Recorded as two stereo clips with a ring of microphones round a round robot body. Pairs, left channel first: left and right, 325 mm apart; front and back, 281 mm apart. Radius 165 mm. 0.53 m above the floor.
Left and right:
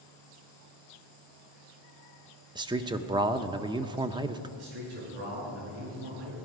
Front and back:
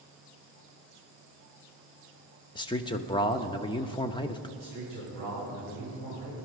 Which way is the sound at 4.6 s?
75° right.